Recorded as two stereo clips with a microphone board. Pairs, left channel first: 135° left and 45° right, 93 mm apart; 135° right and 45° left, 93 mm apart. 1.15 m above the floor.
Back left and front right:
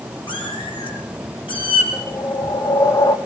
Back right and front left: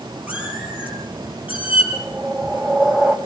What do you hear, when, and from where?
0.3 s a cat meowing: 120° left, 8.5 m
1.9 s a whoosh: 115° left, 1.6 m